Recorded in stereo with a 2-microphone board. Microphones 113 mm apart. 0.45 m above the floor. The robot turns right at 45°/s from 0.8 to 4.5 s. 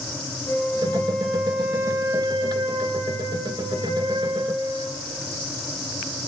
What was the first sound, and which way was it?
A flute, 150° left.